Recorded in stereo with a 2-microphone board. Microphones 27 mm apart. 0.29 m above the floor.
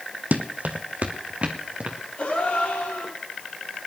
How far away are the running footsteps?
About 1.1 m.